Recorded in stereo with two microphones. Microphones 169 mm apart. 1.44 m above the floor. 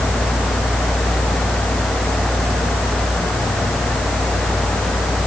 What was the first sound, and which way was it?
Only background noise.